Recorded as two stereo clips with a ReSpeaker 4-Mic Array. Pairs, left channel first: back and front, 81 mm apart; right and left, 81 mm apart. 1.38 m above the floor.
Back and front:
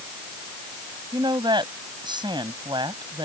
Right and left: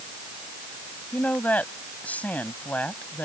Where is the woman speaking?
20° right.